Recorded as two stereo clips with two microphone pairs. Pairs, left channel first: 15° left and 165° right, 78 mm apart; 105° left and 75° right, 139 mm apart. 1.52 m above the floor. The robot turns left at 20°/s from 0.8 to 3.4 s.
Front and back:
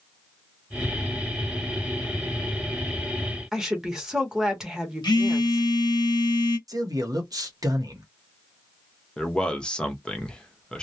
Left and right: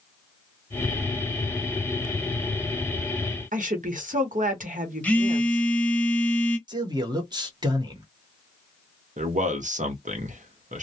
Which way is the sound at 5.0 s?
30° left.